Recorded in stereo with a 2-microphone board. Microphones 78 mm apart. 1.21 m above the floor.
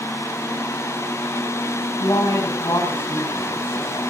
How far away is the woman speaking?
About 7 m.